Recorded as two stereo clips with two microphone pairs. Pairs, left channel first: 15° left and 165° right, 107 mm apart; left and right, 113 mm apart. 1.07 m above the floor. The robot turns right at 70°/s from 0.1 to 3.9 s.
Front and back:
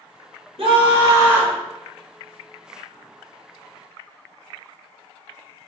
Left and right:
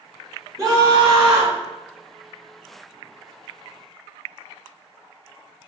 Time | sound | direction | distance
0.6 | a scream | 145° right | 1.6 m